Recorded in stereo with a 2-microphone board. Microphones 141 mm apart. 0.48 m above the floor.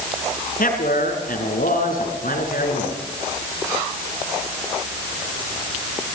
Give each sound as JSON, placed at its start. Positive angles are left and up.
{"t": 0.6, "sound": "a man speaking", "side_deg": 75, "distance_m": 6.0}